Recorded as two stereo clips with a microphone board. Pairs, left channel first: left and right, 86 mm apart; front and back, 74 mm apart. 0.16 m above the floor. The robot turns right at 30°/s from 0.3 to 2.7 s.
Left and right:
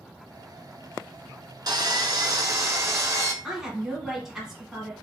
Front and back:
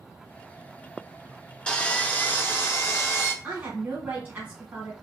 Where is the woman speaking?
170° right, 1.4 m.